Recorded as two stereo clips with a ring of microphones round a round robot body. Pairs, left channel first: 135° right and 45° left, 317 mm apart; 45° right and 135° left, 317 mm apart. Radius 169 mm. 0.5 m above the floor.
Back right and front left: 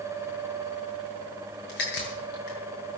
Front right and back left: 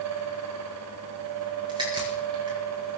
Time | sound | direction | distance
1.7 | a crack | 150° right | 6.5 m